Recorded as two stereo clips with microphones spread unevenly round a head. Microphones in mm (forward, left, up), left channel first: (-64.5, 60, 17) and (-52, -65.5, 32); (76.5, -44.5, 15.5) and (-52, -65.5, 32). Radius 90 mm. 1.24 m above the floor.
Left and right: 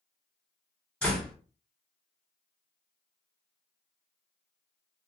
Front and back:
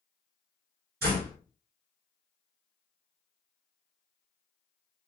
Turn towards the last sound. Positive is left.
turn(degrees=180)